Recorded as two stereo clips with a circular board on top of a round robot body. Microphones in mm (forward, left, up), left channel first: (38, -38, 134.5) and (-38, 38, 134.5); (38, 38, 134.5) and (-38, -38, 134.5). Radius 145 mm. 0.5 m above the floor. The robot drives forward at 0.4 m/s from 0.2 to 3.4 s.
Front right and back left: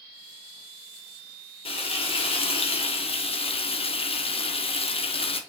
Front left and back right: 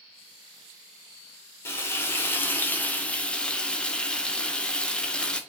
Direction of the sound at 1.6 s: 20° right.